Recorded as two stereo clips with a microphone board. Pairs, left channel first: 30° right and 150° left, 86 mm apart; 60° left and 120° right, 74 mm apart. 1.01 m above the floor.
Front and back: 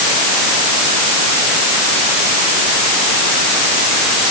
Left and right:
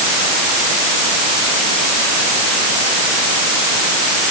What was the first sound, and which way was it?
Only background noise.